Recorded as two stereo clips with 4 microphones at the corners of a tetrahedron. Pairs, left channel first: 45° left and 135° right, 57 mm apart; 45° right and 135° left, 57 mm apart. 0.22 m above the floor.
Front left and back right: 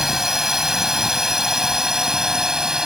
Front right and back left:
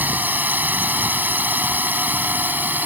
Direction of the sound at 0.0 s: 150° left.